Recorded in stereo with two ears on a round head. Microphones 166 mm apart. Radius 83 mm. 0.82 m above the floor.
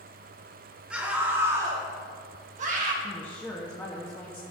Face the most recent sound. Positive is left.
turn(degrees=10)  # may be behind; listen again after turning